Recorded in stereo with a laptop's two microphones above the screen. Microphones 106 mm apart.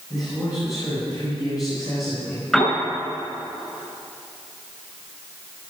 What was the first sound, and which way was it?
A man speaking, 40° left (ahead or behind).